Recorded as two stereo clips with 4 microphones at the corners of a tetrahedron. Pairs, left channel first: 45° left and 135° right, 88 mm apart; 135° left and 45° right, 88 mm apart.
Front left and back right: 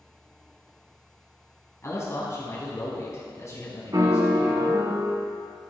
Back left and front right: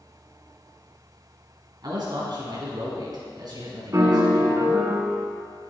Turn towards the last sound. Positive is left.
turn(degrees=-95)